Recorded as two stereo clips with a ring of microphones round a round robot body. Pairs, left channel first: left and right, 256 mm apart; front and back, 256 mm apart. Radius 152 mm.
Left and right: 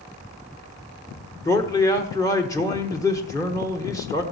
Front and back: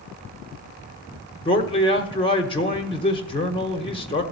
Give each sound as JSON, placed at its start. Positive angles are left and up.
{"t": 1.4, "sound": "a man speaking", "azimuth_deg": 30, "distance_m": 1.2}